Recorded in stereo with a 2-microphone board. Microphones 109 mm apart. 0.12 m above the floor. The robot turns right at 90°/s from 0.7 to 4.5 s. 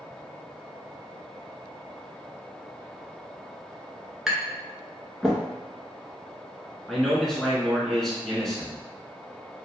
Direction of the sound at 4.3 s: 5° right (ahead or behind).